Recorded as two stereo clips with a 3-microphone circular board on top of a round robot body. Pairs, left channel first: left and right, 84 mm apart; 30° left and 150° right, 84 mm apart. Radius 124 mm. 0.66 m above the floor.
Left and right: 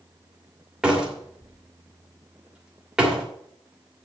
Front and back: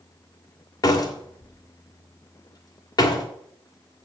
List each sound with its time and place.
0.8 s a door slam: 5° right, 2.5 m